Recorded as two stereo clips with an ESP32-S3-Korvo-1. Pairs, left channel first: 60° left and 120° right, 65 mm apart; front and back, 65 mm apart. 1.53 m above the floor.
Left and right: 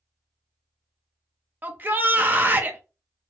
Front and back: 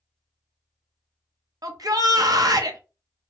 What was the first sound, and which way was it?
A shout, straight behind.